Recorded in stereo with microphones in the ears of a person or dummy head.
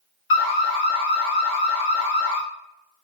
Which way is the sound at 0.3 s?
65° left (ahead or behind).